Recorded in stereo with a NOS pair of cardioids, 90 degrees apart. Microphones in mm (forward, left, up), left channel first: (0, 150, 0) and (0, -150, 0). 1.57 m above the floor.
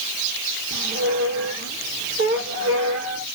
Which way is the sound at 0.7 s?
50° right.